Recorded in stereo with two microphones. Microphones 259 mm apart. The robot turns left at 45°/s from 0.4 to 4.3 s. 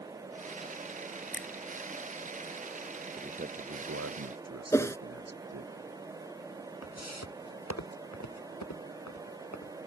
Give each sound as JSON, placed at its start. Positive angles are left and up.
{"t": 1.3, "sound": "a finger snap", "side_deg": 45}
{"t": 3.2, "sound": "a man speaking", "azimuth_deg": -20}
{"t": 4.7, "sound": "a whoosh", "side_deg": 10}
{"t": 6.8, "sound": "footsteps", "side_deg": 65}